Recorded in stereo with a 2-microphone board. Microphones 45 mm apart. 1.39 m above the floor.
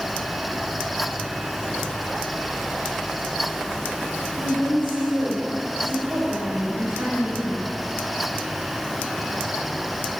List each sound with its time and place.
4.4 s a woman speaking: 70° right (ahead or behind), 4 m; by 7.6 s 75° right (ahead or behind), 7.5 m